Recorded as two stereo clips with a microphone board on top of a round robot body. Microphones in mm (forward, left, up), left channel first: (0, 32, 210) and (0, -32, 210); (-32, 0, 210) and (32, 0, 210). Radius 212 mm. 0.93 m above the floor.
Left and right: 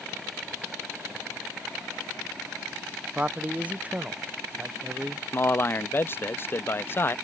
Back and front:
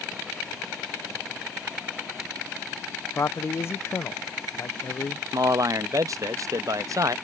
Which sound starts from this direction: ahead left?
A man speaking, at 5.3 s.